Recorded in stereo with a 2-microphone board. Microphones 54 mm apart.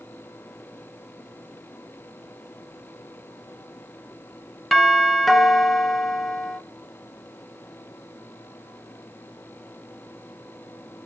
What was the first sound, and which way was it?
A doorbell, centre (ahead or behind).